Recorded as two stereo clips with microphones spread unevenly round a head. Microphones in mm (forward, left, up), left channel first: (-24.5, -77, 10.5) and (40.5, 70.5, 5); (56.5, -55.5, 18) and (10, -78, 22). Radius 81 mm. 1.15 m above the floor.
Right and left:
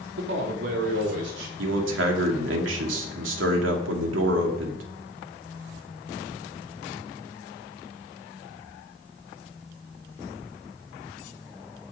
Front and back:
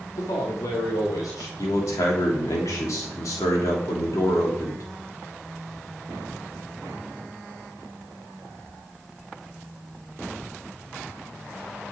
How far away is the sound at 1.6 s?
About 3 m.